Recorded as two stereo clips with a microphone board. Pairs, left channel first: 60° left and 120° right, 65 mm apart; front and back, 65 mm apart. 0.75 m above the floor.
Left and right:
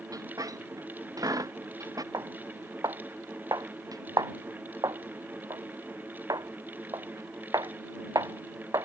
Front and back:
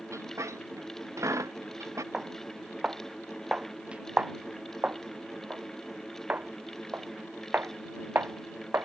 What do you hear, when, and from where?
0.1 s a squeak: 140° right
2.1 s footsteps: 105° right; by 8.9 s 125° right